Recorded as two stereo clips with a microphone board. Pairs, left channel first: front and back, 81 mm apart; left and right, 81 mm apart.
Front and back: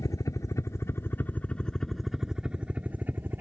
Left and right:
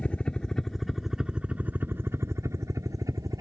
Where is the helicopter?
20° left; by 3.4 s 120° right.